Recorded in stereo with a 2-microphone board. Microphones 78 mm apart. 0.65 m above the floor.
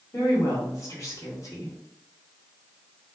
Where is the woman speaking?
40° left (ahead or behind), 1.9 m.